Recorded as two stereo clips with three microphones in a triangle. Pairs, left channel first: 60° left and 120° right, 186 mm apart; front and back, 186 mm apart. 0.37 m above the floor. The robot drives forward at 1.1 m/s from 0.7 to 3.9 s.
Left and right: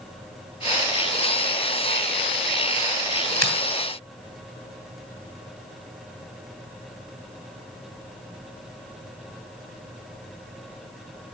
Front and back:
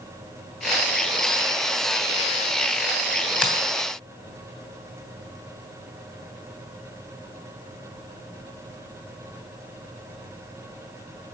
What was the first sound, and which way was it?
A finger snap, 95° right.